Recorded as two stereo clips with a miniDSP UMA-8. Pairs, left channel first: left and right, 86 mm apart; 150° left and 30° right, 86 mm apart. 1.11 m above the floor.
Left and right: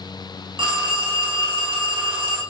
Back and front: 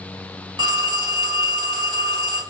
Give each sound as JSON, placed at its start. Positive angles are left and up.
{"t": 0.6, "sound": "a phone ringing", "azimuth_deg": -65, "distance_m": 1.2}